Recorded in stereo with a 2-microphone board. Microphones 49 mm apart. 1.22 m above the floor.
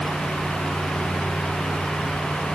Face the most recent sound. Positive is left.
No sound to turn to.